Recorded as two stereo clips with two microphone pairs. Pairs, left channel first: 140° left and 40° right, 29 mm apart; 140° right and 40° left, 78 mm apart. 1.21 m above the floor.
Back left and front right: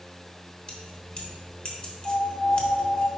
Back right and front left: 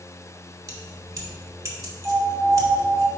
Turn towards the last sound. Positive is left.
turn(degrees=110)